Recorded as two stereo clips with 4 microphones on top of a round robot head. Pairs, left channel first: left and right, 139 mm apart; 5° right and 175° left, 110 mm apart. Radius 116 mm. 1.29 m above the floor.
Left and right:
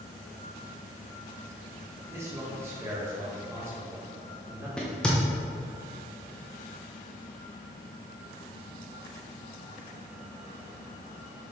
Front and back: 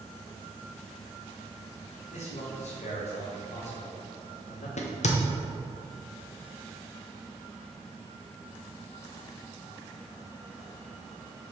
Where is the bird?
I don't hear a bird.